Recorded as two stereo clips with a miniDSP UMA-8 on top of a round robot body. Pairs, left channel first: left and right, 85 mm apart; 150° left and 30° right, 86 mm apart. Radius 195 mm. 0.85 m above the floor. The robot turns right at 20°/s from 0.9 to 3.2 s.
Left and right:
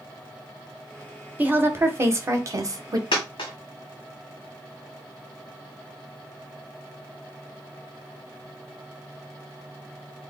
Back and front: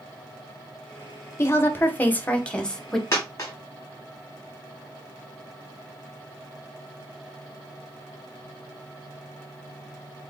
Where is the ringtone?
I don't hear a ringtone.